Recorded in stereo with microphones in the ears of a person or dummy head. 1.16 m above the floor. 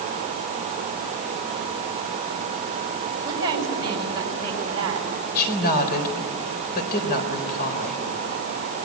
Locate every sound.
3.2 s a woman speaking: 20° right (ahead or behind), 6.5 m
5.3 s a woman speaking: 55° left (ahead or behind), 4 m